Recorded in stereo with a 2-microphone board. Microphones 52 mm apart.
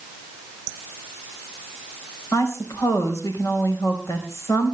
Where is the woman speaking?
70° left (ahead or behind), 4 m.